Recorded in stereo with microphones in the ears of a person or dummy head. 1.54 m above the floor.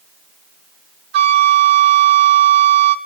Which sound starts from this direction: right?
A flute, at 1.1 s.